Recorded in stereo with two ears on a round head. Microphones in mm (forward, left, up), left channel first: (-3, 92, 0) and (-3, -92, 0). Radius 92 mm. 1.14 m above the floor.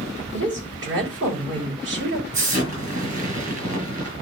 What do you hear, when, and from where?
0.3 s a woman speaking: 65° right (ahead or behind), 6.5 m
2.3 s an explosion: 40° right (ahead or behind), 7 m